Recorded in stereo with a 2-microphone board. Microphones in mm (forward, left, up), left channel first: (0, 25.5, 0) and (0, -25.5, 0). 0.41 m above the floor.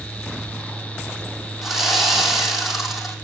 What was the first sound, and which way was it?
Sawing, centre (ahead or behind).